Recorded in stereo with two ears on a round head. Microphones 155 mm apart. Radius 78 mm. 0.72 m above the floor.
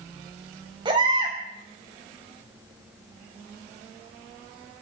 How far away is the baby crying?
About 3.5 m.